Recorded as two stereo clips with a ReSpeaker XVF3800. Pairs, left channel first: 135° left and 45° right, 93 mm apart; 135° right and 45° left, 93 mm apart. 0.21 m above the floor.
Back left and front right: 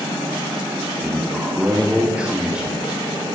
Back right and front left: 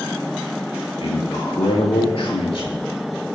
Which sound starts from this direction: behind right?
A man speaking, at 1.0 s.